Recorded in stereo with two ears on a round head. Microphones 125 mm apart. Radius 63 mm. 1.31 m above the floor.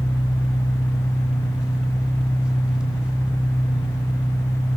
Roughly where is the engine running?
Centre.